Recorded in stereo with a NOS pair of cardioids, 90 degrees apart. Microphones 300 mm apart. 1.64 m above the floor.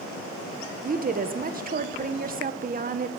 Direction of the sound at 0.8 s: 30° right.